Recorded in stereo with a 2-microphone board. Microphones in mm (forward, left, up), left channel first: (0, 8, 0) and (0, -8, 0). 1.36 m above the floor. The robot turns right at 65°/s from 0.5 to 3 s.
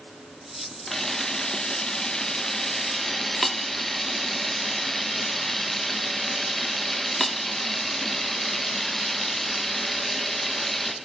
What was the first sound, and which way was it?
A camera shutter, 30° left.